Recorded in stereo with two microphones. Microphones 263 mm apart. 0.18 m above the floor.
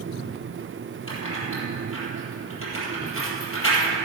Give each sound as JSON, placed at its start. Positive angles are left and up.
{"t": 1.1, "sound": "keys jangling", "side_deg": 55, "distance_m": 3.5}